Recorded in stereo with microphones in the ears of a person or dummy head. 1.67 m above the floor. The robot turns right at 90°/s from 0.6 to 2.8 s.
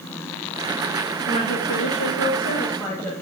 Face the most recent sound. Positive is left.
turn(degrees=165)